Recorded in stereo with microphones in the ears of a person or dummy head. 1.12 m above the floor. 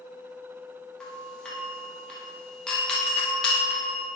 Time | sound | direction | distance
1.0 | a doorbell | 5° left (ahead or behind) | 0.9 m